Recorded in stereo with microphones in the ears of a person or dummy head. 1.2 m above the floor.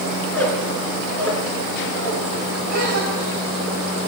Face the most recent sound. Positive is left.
turn(degrees=-55)  # may be behind; listen again after turning